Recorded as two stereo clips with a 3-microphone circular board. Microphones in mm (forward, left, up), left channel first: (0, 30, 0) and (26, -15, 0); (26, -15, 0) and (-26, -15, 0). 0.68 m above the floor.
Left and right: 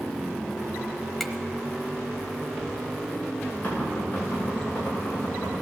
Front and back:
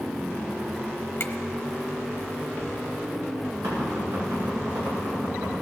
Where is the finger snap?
30° left, 1.1 m.